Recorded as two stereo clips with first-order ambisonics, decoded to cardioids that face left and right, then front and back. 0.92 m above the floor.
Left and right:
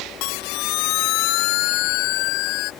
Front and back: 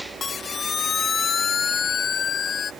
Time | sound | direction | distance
0.2 | a siren | 70° left | ?